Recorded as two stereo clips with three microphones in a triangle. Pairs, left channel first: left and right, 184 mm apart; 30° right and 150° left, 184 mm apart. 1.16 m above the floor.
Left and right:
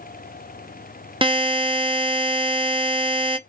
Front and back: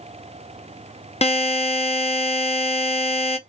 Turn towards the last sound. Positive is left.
turn(degrees=-50)